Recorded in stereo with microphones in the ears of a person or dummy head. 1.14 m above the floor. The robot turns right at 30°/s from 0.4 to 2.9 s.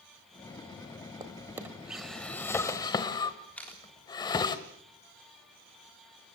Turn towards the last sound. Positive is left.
turn(degrees=5)  # may be behind; listen again after turning